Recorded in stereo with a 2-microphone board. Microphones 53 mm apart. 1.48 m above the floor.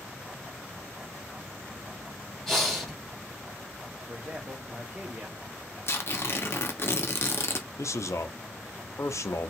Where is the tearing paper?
50° left (ahead or behind), 0.7 m.